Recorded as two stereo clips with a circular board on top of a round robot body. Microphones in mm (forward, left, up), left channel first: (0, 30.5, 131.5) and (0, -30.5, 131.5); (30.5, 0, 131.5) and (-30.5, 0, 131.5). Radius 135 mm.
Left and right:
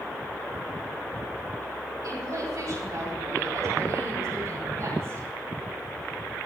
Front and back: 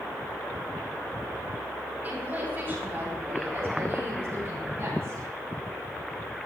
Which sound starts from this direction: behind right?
A woman speaking, at 2.0 s.